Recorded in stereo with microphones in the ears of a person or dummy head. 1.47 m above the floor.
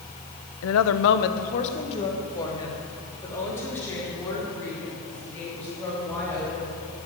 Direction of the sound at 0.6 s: 70° left (ahead or behind).